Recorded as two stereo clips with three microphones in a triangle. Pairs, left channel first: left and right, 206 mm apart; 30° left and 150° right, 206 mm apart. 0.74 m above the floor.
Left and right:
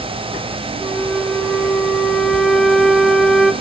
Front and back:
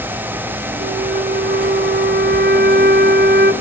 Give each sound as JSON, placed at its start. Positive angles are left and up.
{"t": 0.8, "sound": "a flute", "azimuth_deg": 180, "distance_m": 1.6}